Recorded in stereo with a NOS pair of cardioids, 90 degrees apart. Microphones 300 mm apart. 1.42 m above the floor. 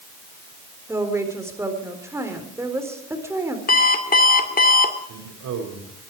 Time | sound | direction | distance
0.9 | a woman speaking | 10° right | 4 m
3.7 | an alarm clock | 30° left | 2 m
5.1 | a man speaking | 70° right | 5.5 m